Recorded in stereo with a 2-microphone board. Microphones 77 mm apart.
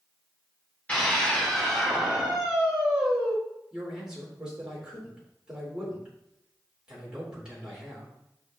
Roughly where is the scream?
Centre.